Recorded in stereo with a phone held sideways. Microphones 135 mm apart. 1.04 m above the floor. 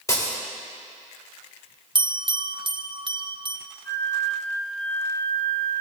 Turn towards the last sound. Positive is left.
turn(degrees=15)  # may be behind; listen again after turning